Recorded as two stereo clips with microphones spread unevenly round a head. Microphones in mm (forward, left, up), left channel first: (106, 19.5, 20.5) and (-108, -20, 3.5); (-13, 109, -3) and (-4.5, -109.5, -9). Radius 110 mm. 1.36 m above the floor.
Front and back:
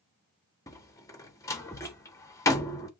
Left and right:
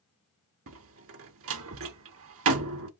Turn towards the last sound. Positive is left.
turn(degrees=-65)